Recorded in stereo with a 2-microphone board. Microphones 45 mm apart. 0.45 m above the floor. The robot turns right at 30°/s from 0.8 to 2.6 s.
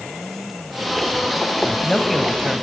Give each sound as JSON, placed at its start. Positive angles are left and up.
{"t": 1.6, "sound": "a man speaking", "side_deg": 15, "distance_m": 2.5}